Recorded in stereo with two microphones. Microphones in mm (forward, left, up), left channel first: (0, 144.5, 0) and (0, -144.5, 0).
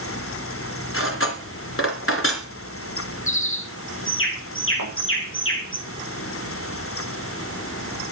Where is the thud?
80° left, 9 m.